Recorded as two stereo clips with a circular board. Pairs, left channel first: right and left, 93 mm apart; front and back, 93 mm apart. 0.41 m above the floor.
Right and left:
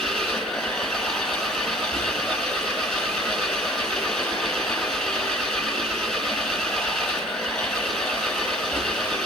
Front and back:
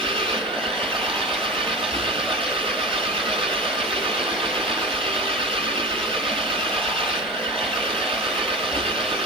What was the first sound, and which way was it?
An engine running, 175° right.